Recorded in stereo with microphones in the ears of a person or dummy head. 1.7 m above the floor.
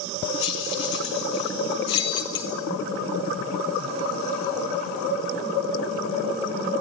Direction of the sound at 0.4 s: 40° left (ahead or behind).